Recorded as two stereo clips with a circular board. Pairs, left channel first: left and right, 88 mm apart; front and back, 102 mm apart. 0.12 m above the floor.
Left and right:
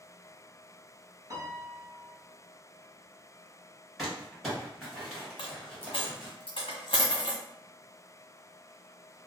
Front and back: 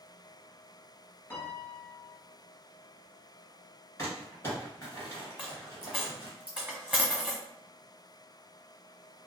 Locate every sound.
1.3 s a piano: 60° right, 0.8 m
4.0 s crumpling: 5° right, 1.5 m
5.4 s a dropped coin: 100° left, 1.2 m